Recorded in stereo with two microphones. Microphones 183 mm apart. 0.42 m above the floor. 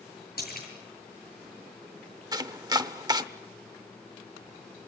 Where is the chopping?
25° right (ahead or behind), 0.7 m.